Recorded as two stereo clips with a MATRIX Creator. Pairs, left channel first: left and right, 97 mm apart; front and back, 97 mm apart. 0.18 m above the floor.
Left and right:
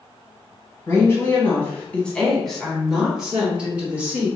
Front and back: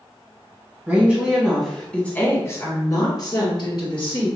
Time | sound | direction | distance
0.9 | a woman speaking | 125° left | 1.5 m